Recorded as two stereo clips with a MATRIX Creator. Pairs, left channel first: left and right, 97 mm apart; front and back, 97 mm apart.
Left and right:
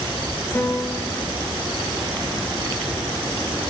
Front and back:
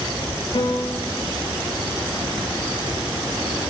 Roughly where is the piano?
Ahead left.